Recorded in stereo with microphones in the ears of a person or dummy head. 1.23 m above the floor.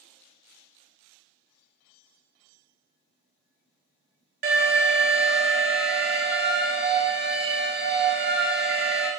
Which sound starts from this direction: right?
An alarm, at 4.4 s.